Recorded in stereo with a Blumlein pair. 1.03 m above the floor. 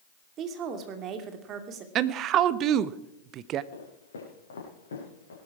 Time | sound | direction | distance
0.4 | a woman speaking | 30° right | 2 m
1.9 | a woman speaking | 35° right | 0.8 m
3.7 | footsteps | 65° left | 6.5 m